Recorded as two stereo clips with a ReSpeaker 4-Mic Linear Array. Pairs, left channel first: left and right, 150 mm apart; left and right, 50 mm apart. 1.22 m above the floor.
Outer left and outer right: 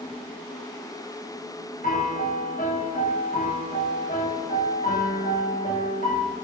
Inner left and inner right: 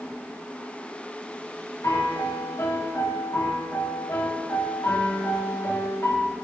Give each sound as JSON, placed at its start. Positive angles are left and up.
{"t": 1.8, "sound": "a piano", "side_deg": 75, "distance_m": 0.9}